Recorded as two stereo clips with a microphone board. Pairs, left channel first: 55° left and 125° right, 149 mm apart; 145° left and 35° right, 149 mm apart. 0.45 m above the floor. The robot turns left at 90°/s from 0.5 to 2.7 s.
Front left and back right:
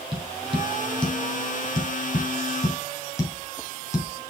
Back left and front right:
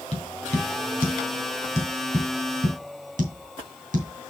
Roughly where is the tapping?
Behind.